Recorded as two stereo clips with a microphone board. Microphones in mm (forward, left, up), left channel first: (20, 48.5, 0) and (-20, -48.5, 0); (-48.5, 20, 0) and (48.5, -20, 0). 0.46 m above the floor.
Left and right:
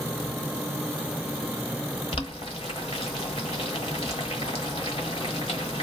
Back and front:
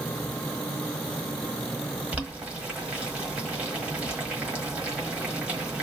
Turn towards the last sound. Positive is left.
turn(degrees=55)